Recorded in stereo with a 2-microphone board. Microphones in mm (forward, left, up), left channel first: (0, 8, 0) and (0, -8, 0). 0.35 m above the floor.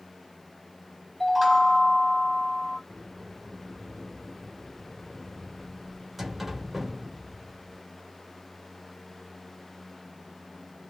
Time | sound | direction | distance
1.2 | a chime | 10° right (ahead or behind) | 1.1 m
2.9 | a sliding door | 10° right (ahead or behind) | 1.3 m